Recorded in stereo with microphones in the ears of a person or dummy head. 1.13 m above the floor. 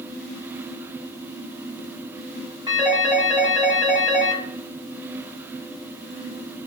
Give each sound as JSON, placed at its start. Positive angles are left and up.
{"t": 2.7, "sound": "a phone ringing", "side_deg": -20, "distance_m": 1.6}